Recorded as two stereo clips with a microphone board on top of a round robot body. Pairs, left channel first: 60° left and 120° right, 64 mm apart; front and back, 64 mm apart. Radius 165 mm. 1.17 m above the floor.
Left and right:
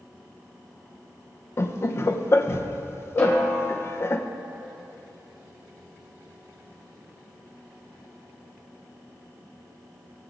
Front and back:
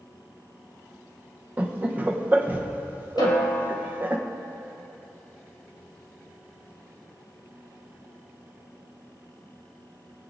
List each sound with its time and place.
1.6 s laughter: 115° left, 0.7 m
3.2 s a snare drum: 5° left, 1.8 m